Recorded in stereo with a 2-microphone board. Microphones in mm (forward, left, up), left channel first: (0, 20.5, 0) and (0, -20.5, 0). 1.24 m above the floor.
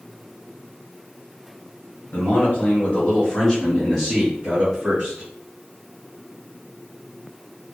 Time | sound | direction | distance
2.1 | a man speaking | 50° left (ahead or behind) | 1.2 m